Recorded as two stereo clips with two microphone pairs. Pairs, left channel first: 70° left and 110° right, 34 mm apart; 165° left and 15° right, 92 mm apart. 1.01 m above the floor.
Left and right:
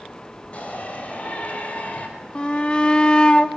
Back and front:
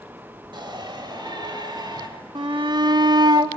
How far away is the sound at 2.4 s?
About 2 m.